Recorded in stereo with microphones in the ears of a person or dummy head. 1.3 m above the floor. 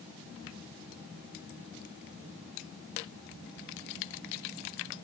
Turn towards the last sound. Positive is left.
No sound to turn to.